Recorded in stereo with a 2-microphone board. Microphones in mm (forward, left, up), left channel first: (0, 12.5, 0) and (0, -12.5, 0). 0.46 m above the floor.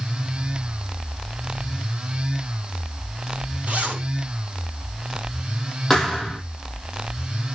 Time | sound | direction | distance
3.7 | a zipper | 55° right (ahead or behind) | 3 m
5.9 | a thud | 5° left (ahead or behind) | 4.5 m